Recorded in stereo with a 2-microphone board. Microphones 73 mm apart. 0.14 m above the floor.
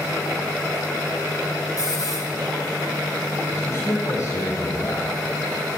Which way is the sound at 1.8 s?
50° left (ahead or behind).